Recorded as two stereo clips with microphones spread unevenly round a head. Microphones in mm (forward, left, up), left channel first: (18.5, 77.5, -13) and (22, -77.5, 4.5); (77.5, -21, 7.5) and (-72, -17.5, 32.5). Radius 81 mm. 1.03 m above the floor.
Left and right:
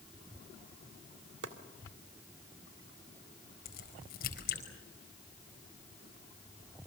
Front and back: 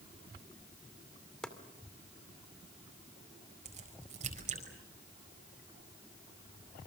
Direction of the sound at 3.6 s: 130° left.